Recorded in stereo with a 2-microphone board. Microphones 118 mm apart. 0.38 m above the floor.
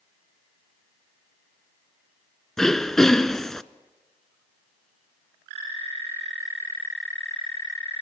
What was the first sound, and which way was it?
Throat clearing, 5° left (ahead or behind).